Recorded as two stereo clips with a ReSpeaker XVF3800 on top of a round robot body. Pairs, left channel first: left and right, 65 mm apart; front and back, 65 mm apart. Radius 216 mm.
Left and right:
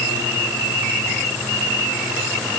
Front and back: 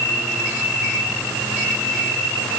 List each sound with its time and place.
Only background noise.